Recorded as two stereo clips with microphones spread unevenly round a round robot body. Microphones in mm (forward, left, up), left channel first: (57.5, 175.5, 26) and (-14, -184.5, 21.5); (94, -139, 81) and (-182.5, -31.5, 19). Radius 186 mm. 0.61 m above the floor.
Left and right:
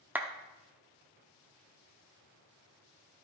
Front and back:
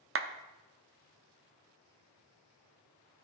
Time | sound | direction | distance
0.1 | a clap | 175° left | 0.8 m